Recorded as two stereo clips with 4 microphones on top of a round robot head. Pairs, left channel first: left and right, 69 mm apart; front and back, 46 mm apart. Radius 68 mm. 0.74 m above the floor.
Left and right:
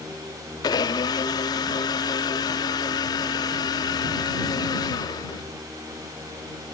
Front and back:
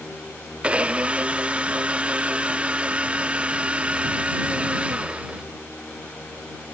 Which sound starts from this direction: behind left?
A blender, at 0.6 s.